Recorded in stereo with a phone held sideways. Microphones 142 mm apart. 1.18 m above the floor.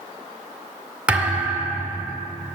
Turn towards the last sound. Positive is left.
turn(degrees=-10)  # may be behind; listen again after turning